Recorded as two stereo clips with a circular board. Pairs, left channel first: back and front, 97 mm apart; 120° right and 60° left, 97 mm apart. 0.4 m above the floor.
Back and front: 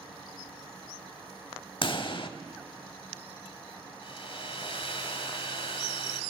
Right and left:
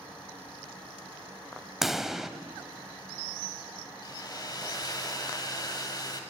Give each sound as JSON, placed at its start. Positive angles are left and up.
{"t": 1.8, "sound": "a pop", "azimuth_deg": 145, "distance_m": 0.6}
{"t": 4.0, "sound": "a hair dryer", "azimuth_deg": -165, "distance_m": 1.3}